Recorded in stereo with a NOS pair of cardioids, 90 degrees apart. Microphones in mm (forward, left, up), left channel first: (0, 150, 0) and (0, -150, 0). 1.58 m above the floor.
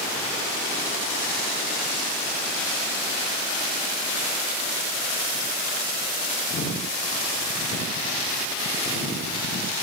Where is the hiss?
No hiss in this recording.